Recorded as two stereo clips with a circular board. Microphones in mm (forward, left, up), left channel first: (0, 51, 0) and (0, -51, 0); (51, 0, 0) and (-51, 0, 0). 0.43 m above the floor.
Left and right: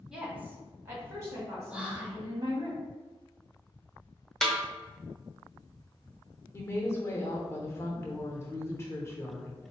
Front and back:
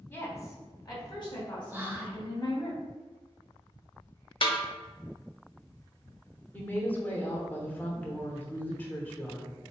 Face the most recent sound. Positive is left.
turn(degrees=55)